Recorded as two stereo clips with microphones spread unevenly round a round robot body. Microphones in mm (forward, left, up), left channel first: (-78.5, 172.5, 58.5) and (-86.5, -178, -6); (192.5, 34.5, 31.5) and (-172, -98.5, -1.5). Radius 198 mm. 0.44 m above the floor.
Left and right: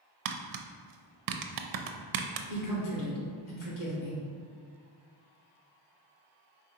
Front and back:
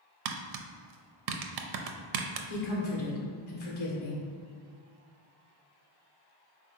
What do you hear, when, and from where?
0.2 s tapping: 125° right, 0.5 m
2.5 s a woman speaking: 60° left, 1.5 m